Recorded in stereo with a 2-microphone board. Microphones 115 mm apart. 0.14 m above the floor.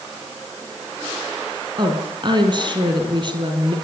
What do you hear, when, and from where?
1.8 s a woman speaking: 45° right (ahead or behind), 4 m